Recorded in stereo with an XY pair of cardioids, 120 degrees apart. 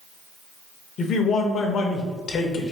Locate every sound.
1.0 s a man speaking: 50° left, 0.9 m